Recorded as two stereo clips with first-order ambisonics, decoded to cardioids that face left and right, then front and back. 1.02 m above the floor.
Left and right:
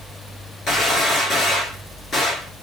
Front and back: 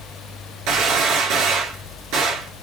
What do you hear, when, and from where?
0.7 s a gunshot: 160° left, 2.5 m